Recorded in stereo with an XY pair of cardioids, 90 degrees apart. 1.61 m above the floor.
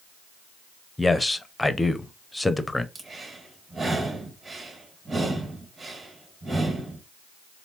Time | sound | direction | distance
1.0 | a man speaking | 15° left | 0.7 m
3.0 | breathing | 40° right | 1.7 m